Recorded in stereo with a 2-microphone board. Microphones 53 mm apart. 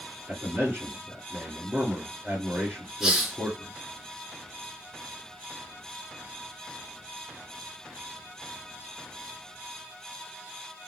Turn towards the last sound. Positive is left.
turn(degrees=-10)  # may be behind; listen again after turning